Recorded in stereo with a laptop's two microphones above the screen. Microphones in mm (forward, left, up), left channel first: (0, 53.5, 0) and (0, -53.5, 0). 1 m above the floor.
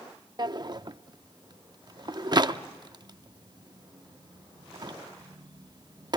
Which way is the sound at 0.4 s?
40° right (ahead or behind).